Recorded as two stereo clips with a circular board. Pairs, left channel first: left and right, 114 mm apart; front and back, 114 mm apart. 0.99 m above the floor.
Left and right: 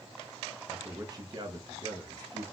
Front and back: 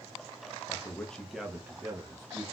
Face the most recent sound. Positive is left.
turn(degrees=-125)